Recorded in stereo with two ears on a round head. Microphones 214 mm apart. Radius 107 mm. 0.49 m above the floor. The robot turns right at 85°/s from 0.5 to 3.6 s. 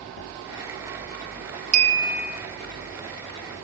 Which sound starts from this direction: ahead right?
A clink, at 1.7 s.